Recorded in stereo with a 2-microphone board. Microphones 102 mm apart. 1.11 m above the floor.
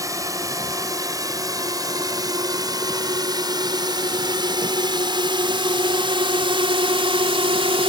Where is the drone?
35° right (ahead or behind); by 7.9 s 65° right (ahead or behind).